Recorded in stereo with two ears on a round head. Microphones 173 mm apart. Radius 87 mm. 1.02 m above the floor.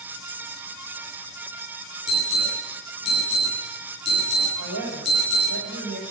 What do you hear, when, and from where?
2.1 s an alarm: 40° left (ahead or behind), 9 m
4.6 s a woman speaking: 65° right (ahead or behind), 5.5 m